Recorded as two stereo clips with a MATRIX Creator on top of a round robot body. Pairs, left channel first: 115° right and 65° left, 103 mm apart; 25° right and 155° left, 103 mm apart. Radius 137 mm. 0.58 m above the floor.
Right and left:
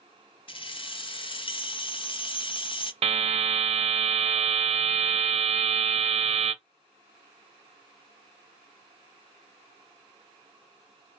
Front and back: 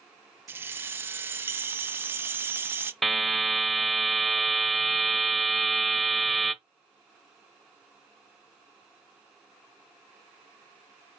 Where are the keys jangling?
135° right, 0.7 m.